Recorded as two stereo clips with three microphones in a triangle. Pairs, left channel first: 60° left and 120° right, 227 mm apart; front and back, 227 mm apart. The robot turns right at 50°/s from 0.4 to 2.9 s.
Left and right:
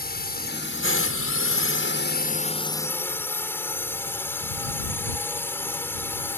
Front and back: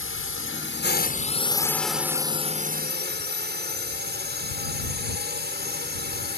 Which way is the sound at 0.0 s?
15° left.